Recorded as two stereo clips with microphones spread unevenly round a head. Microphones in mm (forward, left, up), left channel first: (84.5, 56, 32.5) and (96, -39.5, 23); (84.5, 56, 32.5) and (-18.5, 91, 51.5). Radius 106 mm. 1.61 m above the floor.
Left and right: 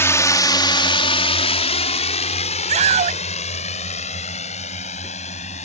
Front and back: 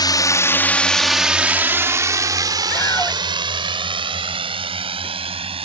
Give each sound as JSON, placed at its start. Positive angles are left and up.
{"t": 0.0, "sound": "a drone", "azimuth_deg": 35}
{"t": 2.7, "sound": "a scream", "azimuth_deg": -100}